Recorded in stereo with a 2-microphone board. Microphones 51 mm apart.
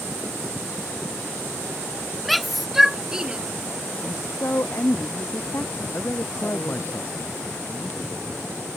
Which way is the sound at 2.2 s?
Centre (ahead or behind).